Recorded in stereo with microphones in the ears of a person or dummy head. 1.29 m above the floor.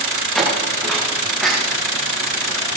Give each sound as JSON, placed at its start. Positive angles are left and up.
{"t": 0.3, "sound": "footsteps", "side_deg": 0, "distance_m": 8.0}